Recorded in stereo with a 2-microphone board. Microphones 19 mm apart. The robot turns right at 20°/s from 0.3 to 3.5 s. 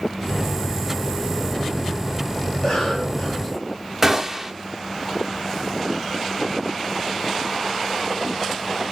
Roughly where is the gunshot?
Centre.